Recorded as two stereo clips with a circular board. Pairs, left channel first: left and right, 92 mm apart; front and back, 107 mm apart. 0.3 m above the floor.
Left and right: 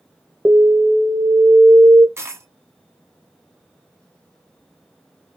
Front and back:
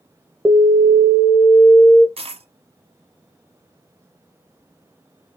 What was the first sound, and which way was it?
An alarm, 115° right.